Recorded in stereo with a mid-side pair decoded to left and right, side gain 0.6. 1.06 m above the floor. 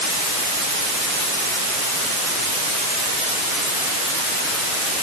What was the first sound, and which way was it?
Only background noise.